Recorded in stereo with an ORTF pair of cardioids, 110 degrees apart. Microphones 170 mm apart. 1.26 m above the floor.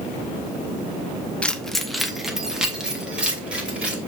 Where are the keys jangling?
5° left, 0.6 m; by 4.0 s 5° right, 2.5 m.